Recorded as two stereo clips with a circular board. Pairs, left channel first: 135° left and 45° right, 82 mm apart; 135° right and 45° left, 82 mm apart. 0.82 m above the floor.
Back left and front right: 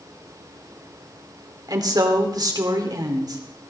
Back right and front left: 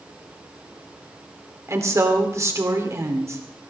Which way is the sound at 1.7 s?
10° right.